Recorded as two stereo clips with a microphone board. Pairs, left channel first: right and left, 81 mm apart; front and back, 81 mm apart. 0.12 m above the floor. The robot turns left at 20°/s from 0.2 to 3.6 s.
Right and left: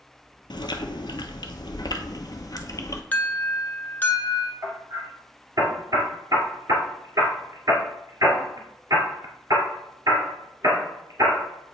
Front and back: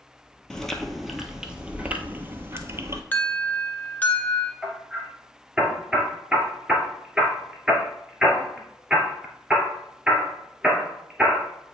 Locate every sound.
0.5 s chewing: 80° right, 0.8 m; by 3.0 s 130° right, 0.8 m
3.1 s an alarm: 40° right, 0.9 m; by 4.5 s 50° right, 0.9 m
4.6 s hammering: 100° left, 1.7 m